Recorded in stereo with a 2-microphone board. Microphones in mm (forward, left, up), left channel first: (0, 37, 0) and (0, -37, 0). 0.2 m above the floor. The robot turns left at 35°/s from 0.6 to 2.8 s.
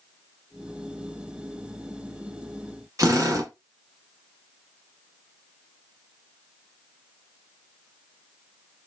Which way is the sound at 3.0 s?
45° right (ahead or behind).